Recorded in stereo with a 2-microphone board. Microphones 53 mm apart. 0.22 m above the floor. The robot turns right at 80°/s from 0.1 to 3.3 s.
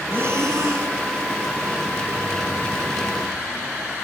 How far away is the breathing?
About 0.7 m.